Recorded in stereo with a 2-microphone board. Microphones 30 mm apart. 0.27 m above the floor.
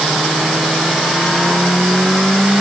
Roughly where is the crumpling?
I don't hear crumpling.